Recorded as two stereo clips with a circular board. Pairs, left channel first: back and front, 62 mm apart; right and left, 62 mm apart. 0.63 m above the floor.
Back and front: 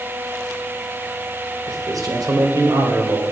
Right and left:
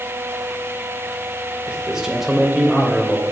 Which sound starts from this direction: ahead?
A man speaking, at 1.7 s.